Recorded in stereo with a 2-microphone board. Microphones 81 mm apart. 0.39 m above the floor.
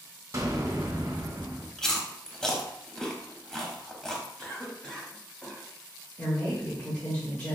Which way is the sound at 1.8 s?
5° left (ahead or behind).